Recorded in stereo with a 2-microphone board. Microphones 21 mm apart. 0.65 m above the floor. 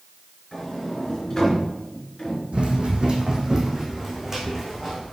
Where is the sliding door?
15° left (ahead or behind), 3.5 m.